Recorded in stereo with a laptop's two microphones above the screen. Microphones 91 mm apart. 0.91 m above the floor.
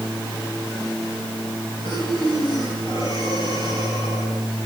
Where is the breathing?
65° left (ahead or behind), 10 m.